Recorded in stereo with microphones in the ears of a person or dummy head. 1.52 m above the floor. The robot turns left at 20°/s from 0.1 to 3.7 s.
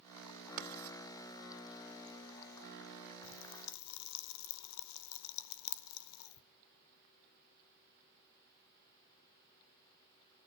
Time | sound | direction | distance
0.6 | writing | 50° right (ahead or behind) | 2.5 m
3.2 | a pop | 65° left (ahead or behind) | 0.7 m